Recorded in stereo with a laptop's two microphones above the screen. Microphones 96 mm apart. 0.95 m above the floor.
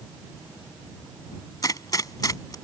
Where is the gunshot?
40° left (ahead or behind).